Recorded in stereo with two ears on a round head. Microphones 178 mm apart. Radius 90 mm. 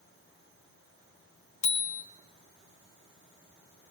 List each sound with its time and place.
1.6 s a bicycle bell: 40° left (ahead or behind), 2.5 m